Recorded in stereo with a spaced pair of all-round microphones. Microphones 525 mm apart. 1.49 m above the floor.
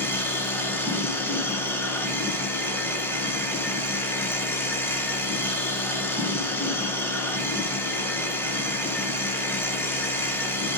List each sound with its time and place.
0.0 s a machine running: 5° left (ahead or behind), 1.5 m